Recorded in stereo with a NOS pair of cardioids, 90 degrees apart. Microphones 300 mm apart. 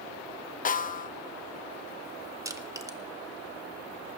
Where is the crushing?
10° right, 1.5 m.